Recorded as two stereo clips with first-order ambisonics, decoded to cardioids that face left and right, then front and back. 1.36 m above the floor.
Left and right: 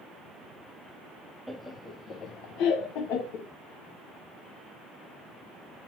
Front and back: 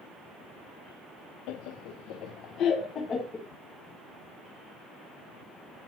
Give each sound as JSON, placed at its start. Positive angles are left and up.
{"t": 1.5, "sound": "laughter", "azimuth_deg": -5, "distance_m": 0.8}